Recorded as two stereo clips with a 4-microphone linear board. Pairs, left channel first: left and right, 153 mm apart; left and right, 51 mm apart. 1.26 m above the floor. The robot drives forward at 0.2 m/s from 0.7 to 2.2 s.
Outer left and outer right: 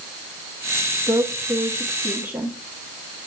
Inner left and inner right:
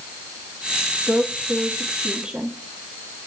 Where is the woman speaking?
15° right (ahead or behind), 1.5 m.